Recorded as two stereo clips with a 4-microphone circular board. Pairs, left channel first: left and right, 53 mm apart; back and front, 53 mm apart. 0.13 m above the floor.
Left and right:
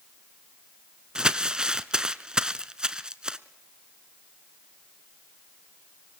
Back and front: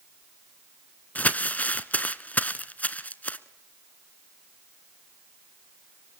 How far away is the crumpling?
About 0.8 m.